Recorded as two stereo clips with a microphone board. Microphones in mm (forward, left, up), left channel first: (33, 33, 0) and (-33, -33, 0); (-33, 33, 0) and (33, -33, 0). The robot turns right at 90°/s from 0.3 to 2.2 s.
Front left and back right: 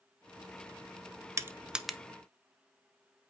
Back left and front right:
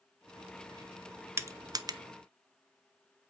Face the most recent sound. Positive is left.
turn(degrees=-20)